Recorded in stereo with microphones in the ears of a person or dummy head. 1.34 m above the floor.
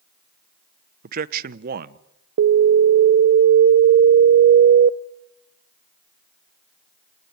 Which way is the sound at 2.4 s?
55° right (ahead or behind).